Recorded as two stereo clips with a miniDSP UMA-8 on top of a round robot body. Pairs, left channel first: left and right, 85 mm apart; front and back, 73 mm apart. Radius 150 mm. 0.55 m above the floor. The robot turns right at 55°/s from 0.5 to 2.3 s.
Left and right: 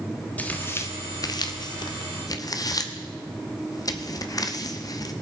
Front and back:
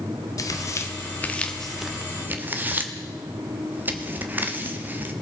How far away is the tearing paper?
About 1.1 m.